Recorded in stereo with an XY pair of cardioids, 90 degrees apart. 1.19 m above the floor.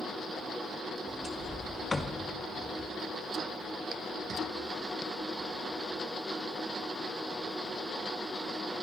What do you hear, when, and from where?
1.1 s a sliding door: 25° left, 1.7 m